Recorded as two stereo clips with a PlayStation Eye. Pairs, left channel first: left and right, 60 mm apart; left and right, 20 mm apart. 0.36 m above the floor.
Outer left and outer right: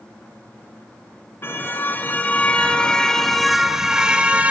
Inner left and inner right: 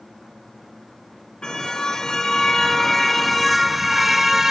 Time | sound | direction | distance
1.4 | a car horn | 40° left (ahead or behind) | 2.5 m